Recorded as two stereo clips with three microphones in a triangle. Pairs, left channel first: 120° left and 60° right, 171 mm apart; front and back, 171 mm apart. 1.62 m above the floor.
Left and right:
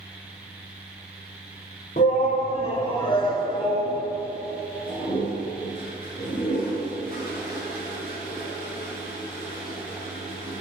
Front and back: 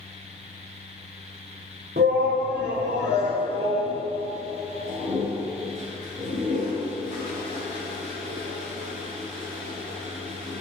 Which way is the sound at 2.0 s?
160° left.